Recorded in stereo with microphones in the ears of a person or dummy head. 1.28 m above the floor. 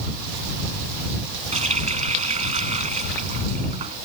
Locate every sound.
1.5 s a running tap: 35° right (ahead or behind)